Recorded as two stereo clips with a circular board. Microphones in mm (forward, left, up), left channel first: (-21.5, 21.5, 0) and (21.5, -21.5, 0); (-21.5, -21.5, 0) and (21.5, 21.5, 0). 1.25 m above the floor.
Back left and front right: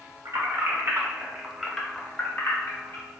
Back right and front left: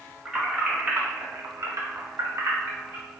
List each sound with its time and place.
0.2 s keys jangling: 30° right, 1.3 m; by 3.0 s 95° left, 1.5 m